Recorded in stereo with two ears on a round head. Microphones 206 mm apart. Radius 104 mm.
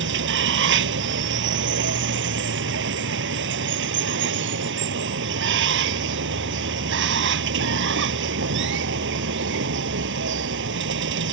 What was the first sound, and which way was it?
Running water, 55° right (ahead or behind).